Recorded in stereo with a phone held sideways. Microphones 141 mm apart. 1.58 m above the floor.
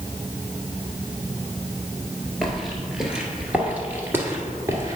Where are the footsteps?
Centre (ahead or behind), 1.8 m; by 5.0 s 25° right (ahead or behind), 1.7 m.